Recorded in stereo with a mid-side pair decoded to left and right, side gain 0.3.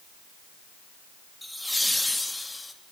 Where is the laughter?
Straight ahead, 3.5 m; by 2.7 s 25° left, 4 m.